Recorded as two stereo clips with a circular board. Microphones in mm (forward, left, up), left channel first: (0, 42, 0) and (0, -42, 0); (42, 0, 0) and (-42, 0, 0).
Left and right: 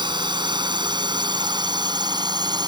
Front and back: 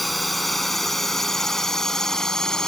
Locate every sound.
0.0 s a drone: 90° right; by 2.7 s 80° right